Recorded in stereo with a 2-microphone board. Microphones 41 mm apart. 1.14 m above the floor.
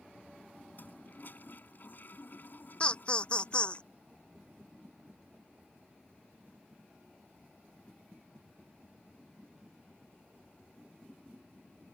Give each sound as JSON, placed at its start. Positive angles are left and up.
{"t": 0.8, "sound": "a toilet flushing", "side_deg": 50}
{"t": 2.8, "sound": "laughter", "side_deg": 25}